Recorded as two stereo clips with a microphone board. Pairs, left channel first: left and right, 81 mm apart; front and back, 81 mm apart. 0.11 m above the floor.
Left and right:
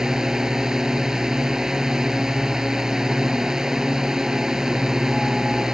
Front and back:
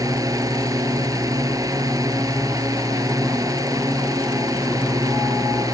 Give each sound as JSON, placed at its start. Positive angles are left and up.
{"t": 0.0, "sound": "a drone", "azimuth_deg": -170}